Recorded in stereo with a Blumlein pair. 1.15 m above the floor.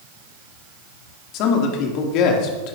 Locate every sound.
1.3 s a man speaking: 40° left, 2.5 m